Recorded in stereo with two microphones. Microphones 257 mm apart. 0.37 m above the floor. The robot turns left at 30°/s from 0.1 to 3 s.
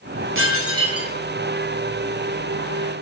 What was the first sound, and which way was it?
Dishes clattering, 50° right (ahead or behind).